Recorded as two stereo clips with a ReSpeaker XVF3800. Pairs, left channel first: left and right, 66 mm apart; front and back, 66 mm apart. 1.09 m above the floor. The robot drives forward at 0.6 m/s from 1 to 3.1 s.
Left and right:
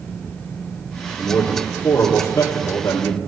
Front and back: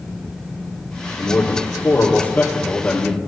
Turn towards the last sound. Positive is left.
turn(degrees=70)